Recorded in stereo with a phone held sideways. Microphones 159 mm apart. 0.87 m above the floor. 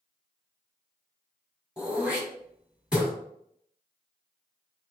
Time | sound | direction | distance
1.8 | throat clearing | 5° right (ahead or behind) | 2 m